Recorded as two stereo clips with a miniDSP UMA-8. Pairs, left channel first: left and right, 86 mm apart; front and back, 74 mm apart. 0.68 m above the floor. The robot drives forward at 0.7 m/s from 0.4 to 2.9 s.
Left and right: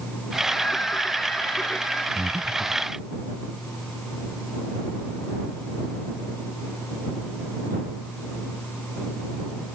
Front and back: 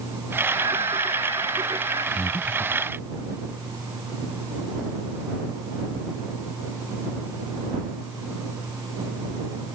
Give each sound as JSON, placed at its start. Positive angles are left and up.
{"t": 0.5, "sound": "singing", "azimuth_deg": 165}
{"t": 2.1, "sound": "breathing", "azimuth_deg": -15}